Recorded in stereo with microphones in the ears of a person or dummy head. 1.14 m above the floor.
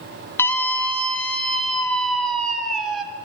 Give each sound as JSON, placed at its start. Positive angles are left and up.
{"t": 0.4, "sound": "a scream", "side_deg": 20, "distance_m": 2.0}